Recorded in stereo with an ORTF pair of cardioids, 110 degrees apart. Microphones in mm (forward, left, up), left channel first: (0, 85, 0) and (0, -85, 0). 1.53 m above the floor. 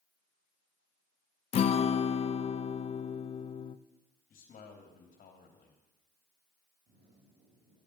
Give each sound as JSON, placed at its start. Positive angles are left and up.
{"t": 1.5, "sound": "a guitar", "azimuth_deg": 35, "distance_m": 0.5}
{"t": 4.3, "sound": "a man speaking", "azimuth_deg": 50, "distance_m": 2.5}
{"t": 6.9, "sound": "a zipper", "azimuth_deg": -55, "distance_m": 5.0}